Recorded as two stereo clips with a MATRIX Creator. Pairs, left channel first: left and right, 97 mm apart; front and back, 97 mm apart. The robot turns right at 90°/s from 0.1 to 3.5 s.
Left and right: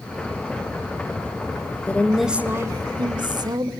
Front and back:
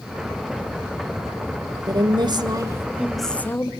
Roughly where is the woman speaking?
Behind left.